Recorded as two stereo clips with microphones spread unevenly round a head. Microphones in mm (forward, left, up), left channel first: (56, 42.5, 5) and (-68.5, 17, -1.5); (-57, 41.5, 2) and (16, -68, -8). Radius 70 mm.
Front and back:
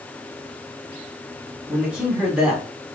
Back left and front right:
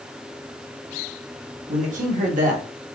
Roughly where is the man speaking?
Right.